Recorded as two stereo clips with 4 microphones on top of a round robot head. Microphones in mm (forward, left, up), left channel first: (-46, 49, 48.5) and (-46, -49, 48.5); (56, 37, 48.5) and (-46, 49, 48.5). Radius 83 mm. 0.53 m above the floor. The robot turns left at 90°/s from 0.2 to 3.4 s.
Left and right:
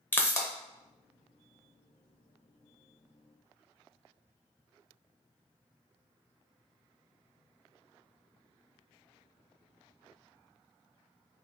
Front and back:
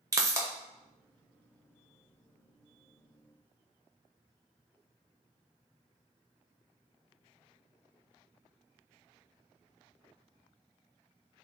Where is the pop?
145° left, 1.0 m; by 0.5 s 120° left, 1.0 m.